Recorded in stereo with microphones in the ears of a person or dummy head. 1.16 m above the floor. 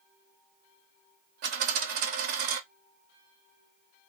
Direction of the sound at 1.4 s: 45° right (ahead or behind).